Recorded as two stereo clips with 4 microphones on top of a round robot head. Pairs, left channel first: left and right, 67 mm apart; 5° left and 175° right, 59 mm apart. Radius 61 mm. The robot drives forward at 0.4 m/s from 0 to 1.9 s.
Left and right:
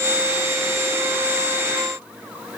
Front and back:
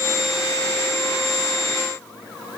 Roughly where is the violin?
I don't hear a violin.